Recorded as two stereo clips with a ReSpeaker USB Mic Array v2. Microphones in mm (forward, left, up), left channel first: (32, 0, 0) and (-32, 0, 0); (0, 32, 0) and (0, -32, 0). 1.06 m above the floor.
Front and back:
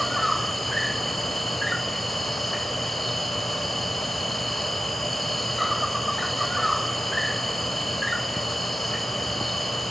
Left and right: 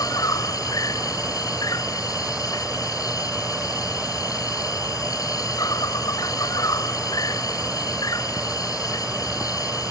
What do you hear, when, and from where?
0.0 s an insect: 90° left